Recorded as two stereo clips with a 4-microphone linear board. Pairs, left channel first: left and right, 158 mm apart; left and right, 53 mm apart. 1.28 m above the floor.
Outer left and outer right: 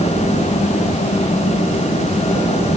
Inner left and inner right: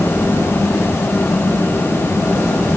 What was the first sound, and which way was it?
Only background noise.